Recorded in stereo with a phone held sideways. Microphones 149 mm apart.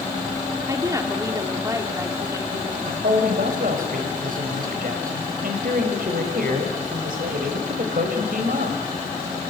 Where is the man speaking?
70° right (ahead or behind), 4.5 m.